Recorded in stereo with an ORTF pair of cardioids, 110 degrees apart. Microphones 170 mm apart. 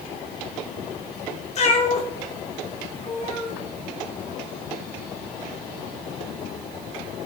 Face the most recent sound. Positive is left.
turn(degrees=45)